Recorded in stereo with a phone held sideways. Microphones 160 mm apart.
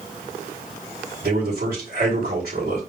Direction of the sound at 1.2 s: 75° right (ahead or behind).